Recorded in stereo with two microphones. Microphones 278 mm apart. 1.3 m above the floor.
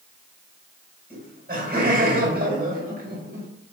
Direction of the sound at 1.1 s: 35° right (ahead or behind).